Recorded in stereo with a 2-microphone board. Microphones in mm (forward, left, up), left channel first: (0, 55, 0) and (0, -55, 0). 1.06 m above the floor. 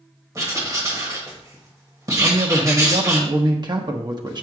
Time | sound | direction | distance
0.3 | writing | 30° right (ahead or behind) | 1.6 m
2.2 | a man speaking | 40° right (ahead or behind) | 0.9 m